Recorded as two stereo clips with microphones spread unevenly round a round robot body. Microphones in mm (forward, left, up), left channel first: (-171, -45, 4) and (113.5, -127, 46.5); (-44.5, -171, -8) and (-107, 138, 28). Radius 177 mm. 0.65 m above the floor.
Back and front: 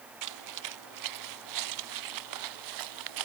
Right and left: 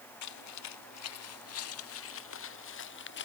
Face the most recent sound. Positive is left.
turn(degrees=-15)